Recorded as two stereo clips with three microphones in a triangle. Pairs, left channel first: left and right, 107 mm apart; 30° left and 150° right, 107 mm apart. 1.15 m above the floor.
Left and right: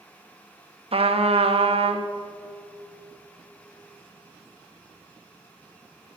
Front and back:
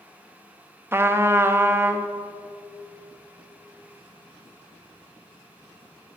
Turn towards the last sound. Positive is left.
turn(degrees=-85)